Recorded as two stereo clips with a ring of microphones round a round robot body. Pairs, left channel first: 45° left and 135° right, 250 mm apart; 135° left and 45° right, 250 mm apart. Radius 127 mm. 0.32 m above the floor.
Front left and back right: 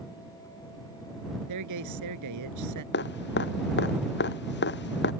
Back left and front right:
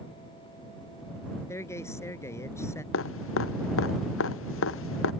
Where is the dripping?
95° left.